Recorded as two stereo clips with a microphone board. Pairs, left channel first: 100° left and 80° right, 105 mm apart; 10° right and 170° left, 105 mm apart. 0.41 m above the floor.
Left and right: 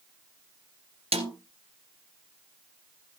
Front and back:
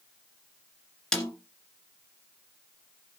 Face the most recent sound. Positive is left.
turn(degrees=-95)